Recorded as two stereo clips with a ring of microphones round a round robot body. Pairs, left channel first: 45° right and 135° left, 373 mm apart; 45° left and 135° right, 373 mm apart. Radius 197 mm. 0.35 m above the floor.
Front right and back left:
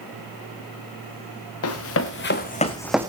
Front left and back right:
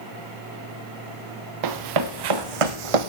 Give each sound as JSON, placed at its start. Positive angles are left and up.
{"t": 1.6, "sound": "running footsteps", "azimuth_deg": -100, "distance_m": 2.5}